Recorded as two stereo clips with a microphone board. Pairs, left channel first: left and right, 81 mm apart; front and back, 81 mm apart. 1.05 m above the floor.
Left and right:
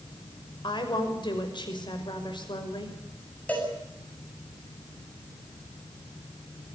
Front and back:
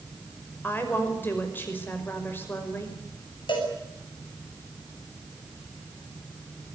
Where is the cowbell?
15° left, 8.5 m.